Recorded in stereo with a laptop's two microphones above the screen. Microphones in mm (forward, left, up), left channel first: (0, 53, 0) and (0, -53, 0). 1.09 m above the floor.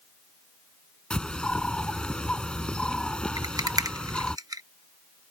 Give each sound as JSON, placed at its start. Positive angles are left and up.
{"t": 1.1, "sound": "a bird", "side_deg": 5}
{"t": 3.4, "sound": "a rattle", "side_deg": -35}